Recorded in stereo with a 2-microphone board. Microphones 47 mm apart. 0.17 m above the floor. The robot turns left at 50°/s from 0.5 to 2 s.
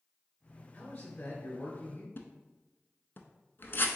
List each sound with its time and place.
0.7 s a man speaking: 130° left, 1.3 m; by 2.1 s 70° left, 1.3 m
2.2 s a splash: 55° left (ahead or behind), 0.5 m